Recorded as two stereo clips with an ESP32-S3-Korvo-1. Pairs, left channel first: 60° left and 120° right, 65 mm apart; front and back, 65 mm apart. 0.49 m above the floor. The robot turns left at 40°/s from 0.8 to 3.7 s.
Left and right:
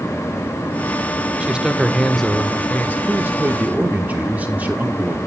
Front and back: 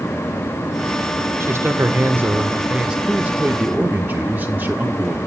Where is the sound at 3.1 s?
130° right, 1.0 m; by 5.2 s 155° right, 1.0 m.